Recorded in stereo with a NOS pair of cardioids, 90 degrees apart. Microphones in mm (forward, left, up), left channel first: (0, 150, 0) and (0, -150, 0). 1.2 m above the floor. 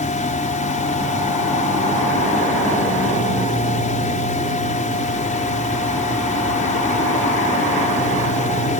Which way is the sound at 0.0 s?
25° left.